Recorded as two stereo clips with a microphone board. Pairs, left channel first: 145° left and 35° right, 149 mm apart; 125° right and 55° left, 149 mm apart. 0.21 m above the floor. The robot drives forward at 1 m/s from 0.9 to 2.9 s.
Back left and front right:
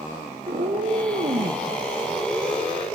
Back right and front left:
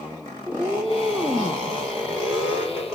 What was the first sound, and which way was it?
A cat meowing, 25° right.